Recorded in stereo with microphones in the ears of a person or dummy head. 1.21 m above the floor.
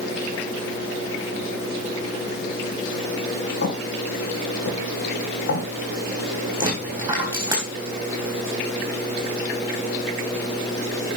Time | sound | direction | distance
3.6 | footsteps | 65° left (ahead or behind) | 3 m
6.6 | a dropped coin | 15° right (ahead or behind) | 3.5 m